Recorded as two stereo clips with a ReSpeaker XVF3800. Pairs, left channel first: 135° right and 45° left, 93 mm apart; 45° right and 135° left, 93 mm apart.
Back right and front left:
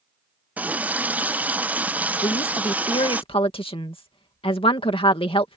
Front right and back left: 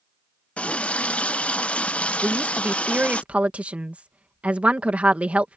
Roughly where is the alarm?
No alarm in this recording.